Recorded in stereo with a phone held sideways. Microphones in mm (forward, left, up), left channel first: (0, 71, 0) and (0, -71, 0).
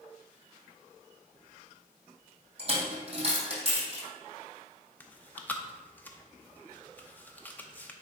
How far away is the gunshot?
No gunshot in this recording.